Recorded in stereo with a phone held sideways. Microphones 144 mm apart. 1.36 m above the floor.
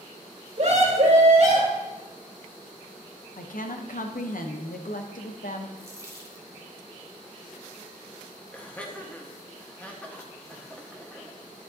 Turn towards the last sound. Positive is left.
turn(degrees=10)  # may be behind; listen again after turning